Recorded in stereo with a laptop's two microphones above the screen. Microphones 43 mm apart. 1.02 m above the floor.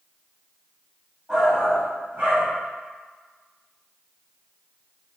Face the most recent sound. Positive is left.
turn(degrees=-55)  # may be behind; listen again after turning